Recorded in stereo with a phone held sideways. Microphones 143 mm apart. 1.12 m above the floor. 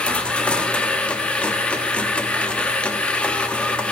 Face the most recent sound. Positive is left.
turn(degrees=10)  # may be behind; listen again after turning